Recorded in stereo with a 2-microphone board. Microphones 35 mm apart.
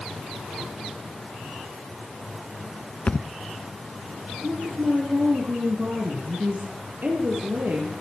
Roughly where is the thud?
Left.